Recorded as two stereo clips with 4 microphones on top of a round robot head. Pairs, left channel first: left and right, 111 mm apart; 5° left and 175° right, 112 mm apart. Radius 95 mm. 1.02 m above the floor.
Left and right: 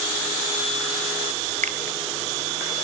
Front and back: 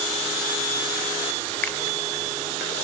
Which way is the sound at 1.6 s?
75° right.